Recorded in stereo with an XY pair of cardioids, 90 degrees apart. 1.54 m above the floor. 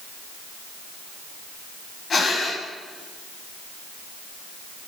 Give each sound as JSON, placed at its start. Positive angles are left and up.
{"t": 2.1, "sound": "breathing", "azimuth_deg": 45, "distance_m": 9.0}